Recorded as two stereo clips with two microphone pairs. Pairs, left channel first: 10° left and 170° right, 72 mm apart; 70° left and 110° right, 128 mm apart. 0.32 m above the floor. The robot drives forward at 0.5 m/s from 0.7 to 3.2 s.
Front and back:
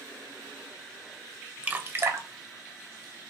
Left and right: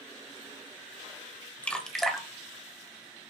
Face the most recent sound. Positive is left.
turn(degrees=170)